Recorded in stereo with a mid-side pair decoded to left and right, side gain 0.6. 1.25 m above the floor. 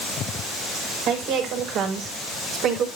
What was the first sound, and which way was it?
A woman speaking, 65° right.